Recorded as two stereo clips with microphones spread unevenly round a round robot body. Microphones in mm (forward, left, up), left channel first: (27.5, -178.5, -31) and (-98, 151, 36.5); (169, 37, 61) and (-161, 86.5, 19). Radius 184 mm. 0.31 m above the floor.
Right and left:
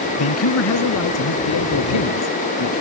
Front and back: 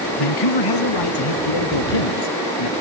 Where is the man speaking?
25° right; by 2.7 s 20° right.